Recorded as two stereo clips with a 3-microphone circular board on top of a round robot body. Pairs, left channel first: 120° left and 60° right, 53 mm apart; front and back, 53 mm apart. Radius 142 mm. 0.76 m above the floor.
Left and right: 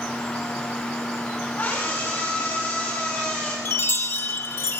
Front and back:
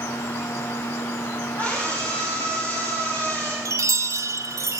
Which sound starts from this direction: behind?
A chime, at 3.6 s.